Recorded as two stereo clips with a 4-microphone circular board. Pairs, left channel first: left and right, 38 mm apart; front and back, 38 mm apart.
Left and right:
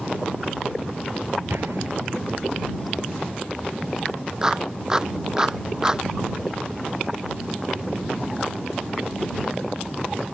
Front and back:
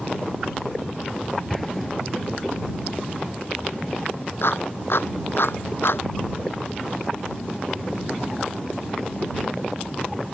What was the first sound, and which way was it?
An explosion, 85° right.